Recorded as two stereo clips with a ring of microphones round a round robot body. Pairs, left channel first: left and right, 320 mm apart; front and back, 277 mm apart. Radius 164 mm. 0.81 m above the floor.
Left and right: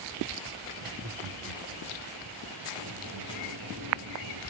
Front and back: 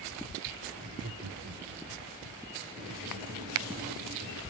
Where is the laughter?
125° right, 2.5 m; by 2.1 s 150° right, 1.8 m.